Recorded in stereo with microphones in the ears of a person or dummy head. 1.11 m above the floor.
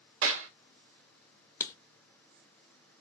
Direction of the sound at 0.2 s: 80° right.